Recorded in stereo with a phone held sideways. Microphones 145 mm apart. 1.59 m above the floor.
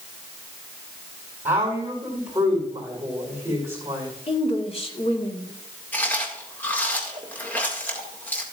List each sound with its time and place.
1.4 s a woman speaking: 10° right (ahead or behind), 4.5 m
4.3 s a woman speaking: 40° left (ahead or behind), 1.7 m
5.9 s chewing: 15° left (ahead or behind), 1.9 m